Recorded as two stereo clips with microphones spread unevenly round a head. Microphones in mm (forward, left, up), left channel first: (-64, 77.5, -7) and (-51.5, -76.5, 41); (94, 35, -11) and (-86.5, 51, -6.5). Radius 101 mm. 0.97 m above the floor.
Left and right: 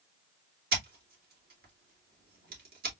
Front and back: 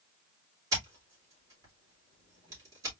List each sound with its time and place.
0.7 s scissors: 110° right, 2.5 m